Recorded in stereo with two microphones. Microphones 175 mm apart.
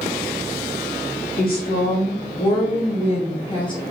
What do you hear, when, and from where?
1.4 s a woman speaking: 55° left (ahead or behind), 2.5 m; by 3.8 s 25° left (ahead or behind), 1.9 m